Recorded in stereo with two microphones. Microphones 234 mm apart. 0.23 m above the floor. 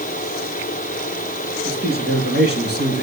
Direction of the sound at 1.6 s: 50° right (ahead or behind).